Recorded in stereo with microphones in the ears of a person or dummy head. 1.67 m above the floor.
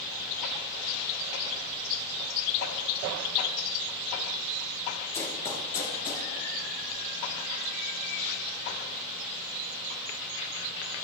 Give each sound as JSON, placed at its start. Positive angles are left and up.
{"t": 5.1, "sound": "running footsteps", "side_deg": 20, "distance_m": 1.9}